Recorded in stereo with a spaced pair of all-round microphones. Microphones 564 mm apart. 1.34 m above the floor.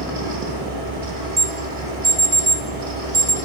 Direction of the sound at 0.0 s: 65° right (ahead or behind).